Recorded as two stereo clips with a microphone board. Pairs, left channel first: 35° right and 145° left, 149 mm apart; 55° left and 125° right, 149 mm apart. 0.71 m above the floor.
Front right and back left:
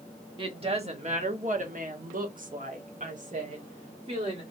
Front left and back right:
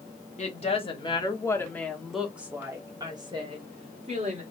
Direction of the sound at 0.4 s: 95° left.